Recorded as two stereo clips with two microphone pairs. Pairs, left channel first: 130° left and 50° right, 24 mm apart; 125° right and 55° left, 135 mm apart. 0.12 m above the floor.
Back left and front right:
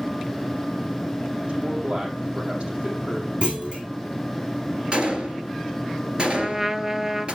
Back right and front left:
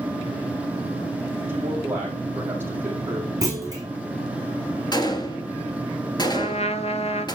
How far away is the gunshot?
About 2.5 m.